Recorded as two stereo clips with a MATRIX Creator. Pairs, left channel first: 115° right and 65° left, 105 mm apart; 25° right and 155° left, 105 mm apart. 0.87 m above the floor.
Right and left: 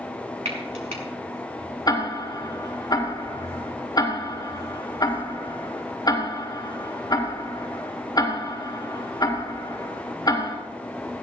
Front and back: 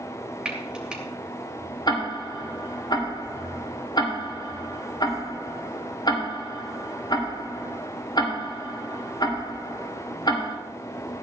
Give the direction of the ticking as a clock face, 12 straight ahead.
2 o'clock.